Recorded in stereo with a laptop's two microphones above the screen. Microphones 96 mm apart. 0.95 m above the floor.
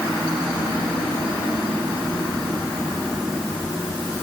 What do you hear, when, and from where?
Only background noise.